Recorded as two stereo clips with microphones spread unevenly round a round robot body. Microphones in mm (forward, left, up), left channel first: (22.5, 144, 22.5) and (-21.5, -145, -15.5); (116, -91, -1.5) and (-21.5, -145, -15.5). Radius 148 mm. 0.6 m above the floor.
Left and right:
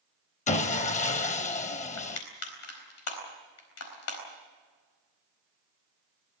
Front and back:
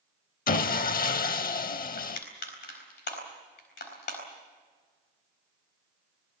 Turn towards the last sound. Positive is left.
turn(degrees=35)